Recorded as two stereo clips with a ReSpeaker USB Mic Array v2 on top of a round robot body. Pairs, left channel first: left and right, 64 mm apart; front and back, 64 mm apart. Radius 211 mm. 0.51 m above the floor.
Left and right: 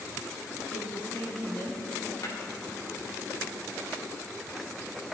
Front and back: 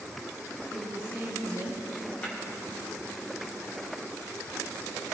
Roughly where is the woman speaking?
Ahead left.